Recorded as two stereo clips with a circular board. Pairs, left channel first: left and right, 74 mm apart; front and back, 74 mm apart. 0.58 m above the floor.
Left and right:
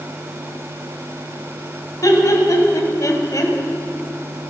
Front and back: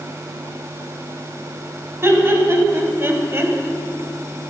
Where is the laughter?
125° left, 3.5 m.